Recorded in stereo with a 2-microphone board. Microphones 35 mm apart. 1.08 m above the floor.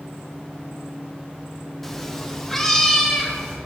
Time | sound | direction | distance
1.8 | a cat meowing | 5° left (ahead or behind) | 0.6 m